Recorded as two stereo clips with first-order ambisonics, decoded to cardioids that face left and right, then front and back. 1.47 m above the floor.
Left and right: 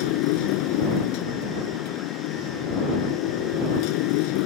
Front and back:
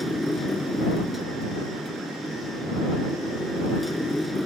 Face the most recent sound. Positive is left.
turn(degrees=85)